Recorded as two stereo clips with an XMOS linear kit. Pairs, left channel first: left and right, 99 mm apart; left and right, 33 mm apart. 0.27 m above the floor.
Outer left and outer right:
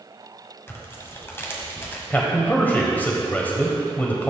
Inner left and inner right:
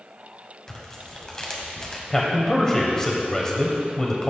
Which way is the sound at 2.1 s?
20° left (ahead or behind).